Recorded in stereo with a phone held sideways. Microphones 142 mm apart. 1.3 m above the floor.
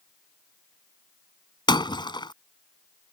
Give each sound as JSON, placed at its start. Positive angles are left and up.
{"t": 1.7, "sound": "breaking glass", "side_deg": 30}